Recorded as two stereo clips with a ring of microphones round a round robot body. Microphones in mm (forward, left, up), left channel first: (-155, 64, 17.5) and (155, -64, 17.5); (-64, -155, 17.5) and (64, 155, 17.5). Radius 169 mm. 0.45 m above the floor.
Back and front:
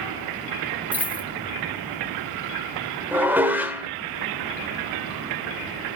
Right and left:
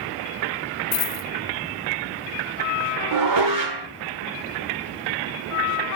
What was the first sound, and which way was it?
A dropped coin, 110° right.